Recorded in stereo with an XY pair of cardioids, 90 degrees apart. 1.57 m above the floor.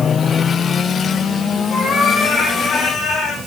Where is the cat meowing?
60° left, 8.5 m; by 3.4 s 55° left, 7.5 m.